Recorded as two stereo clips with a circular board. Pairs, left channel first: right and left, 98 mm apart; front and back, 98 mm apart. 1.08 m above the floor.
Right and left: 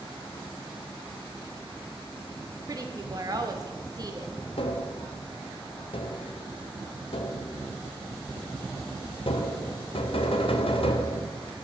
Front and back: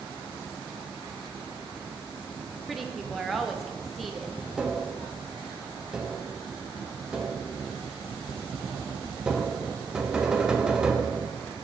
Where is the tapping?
95° right, 0.7 m.